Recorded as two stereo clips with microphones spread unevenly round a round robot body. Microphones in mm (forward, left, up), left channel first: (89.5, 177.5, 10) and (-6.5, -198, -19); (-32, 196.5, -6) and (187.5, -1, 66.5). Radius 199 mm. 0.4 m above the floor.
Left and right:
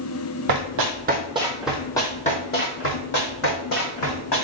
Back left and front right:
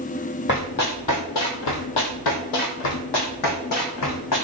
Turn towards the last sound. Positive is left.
turn(degrees=115)